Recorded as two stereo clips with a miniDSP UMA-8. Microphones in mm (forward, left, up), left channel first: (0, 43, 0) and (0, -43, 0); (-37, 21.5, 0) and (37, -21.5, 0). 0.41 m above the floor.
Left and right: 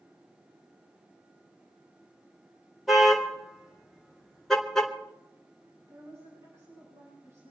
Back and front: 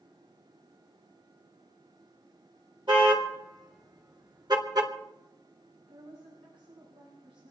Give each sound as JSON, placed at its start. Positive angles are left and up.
{"t": 2.9, "sound": "a car horn", "azimuth_deg": 0, "distance_m": 4.5}
{"t": 5.8, "sound": "a woman speaking", "azimuth_deg": -30, "distance_m": 10.0}